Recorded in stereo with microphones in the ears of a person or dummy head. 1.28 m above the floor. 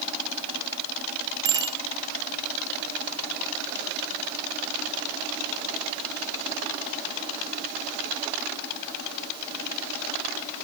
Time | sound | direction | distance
1.4 | a bicycle bell | 30° right (ahead or behind) | 3 m